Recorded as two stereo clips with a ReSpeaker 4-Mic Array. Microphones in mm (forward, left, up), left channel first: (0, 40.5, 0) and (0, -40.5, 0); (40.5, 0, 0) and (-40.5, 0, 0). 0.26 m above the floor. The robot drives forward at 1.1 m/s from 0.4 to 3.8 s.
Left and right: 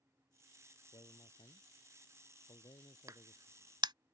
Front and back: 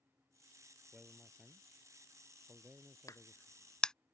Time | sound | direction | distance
0.9 | a man speaking | 90° left | ?
3.1 | a crack | 45° right | ?